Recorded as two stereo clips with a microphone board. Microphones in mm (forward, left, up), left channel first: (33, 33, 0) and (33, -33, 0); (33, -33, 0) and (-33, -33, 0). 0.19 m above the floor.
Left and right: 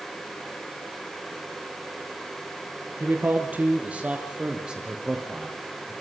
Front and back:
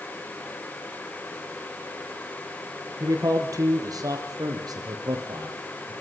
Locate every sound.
3.0 s a man speaking: 145° right, 5 m; by 5.9 s 175° right, 6 m